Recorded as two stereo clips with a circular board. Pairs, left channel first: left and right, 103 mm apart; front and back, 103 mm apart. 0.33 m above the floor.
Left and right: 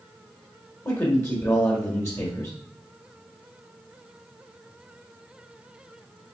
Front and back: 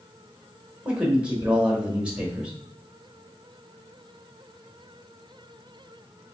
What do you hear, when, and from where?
0.8 s a man speaking: 115° left, 1.2 m